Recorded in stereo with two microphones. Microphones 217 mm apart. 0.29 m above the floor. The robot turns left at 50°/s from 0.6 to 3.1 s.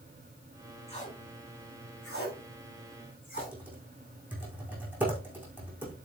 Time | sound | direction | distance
0.9 | tape being pulled | 25° left (ahead or behind) | 7.5 m
3.4 | typing on a keyboard | 5° right (ahead or behind) | 6 m